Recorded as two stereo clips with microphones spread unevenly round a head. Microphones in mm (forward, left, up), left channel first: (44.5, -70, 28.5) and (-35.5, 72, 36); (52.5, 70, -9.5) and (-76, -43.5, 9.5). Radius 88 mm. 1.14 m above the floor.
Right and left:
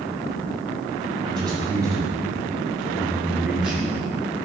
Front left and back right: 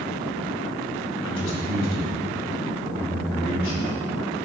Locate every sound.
1.2 s a man speaking: 55° left, 5.5 m; by 3.9 s 35° left, 4.5 m